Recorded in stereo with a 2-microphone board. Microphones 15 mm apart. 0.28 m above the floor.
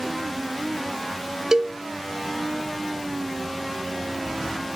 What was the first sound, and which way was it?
A cowbell, 35° right (ahead or behind).